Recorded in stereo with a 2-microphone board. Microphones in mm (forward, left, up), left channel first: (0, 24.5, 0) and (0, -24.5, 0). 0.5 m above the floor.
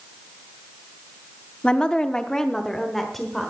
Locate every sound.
1.6 s a woman speaking: 20° left (ahead or behind), 0.7 m; by 3.5 s 5° left (ahead or behind), 1.4 m